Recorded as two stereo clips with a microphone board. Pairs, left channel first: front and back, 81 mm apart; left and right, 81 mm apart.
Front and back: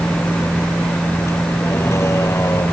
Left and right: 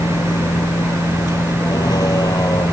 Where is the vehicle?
65° left; by 2.7 s 50° left.